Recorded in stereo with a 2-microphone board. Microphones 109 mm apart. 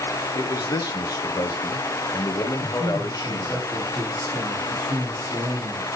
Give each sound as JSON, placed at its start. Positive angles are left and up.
{"t": 0.3, "sound": "a man speaking", "side_deg": 35, "distance_m": 1.2}
{"t": 2.6, "sound": "a man speaking", "side_deg": -40, "distance_m": 4.0}